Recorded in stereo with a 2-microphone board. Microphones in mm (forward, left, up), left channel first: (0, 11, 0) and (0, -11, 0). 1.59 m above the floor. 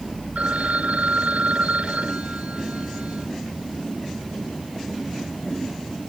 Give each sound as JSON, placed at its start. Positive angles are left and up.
{"t": 0.3, "sound": "a phone ringing", "side_deg": -85}